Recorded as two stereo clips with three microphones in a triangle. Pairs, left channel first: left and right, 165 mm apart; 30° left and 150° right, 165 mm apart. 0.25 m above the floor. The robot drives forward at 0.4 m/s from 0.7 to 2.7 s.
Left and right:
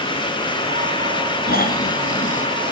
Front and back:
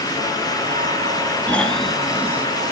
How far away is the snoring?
About 0.8 m.